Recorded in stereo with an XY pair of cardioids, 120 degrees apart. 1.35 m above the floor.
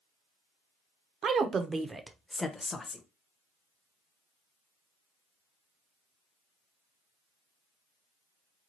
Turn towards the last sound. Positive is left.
turn(degrees=25)